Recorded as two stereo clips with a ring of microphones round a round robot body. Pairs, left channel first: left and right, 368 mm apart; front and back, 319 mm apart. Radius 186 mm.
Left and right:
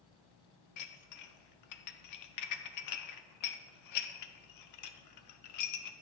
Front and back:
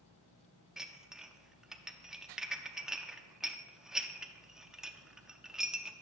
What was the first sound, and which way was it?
Dishes clattering, 90° left.